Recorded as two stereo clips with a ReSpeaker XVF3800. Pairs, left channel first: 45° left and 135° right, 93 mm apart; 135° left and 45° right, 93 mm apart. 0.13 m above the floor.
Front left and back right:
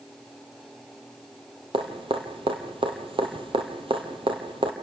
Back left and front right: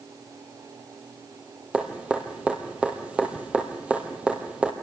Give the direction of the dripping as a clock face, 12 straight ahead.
4 o'clock.